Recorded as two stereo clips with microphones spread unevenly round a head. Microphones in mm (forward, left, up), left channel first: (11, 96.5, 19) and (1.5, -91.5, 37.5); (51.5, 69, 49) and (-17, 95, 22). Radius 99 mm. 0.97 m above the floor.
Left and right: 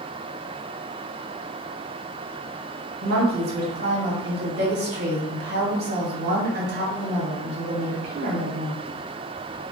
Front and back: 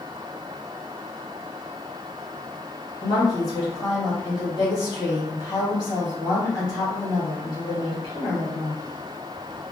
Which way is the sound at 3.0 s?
75° right.